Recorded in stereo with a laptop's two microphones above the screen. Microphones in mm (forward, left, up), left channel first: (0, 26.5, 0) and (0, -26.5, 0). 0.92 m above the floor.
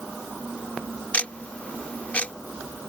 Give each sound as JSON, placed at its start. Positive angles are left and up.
{"t": 1.1, "sound": "ticking", "side_deg": 25}